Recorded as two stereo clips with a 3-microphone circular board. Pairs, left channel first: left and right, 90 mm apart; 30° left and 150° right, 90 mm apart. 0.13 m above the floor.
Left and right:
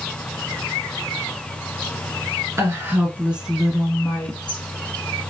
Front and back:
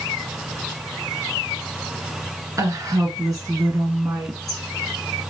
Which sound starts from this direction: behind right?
A woman speaking, at 2.6 s.